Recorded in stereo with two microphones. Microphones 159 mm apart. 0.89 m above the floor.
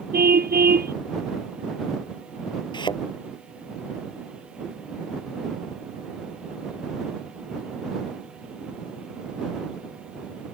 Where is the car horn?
75° right (ahead or behind).